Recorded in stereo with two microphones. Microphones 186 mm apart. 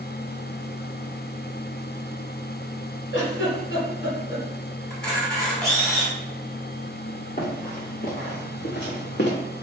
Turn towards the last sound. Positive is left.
turn(degrees=70)  # may be behind; listen again after turning